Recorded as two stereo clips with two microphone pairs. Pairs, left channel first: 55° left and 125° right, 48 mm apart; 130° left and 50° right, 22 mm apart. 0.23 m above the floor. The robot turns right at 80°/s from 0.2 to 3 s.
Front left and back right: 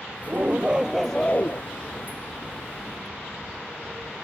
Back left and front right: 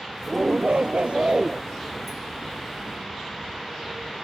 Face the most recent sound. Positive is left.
turn(degrees=125)